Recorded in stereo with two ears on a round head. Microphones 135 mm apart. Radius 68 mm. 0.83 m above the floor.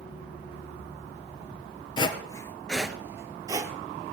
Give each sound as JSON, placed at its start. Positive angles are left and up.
{"t": 2.0, "sound": "footsteps", "side_deg": 35, "distance_m": 1.0}